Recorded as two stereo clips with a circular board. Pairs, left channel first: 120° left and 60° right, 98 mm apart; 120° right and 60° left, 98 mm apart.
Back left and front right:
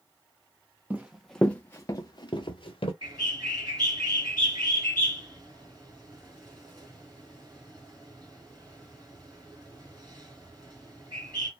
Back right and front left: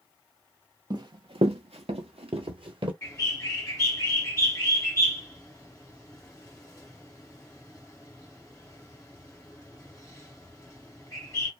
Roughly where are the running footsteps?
Ahead.